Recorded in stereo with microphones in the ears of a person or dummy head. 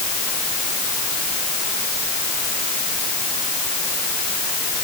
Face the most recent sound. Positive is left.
No sound to turn to.